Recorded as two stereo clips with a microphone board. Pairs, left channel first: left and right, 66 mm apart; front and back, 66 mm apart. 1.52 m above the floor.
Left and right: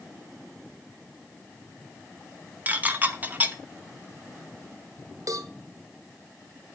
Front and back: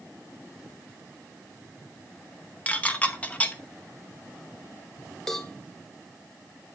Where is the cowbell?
80° right, 1.0 m.